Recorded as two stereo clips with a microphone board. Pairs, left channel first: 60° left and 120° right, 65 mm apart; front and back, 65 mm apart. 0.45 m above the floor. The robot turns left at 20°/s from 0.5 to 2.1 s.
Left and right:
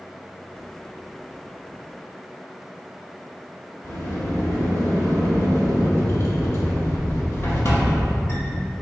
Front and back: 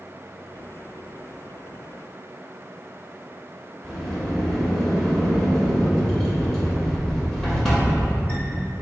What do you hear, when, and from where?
3.8 s a sliding door: 75° left, 2.0 m